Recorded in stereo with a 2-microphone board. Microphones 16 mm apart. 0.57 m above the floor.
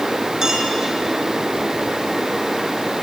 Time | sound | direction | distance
0.4 | a clink | 35° right (ahead or behind) | 4 m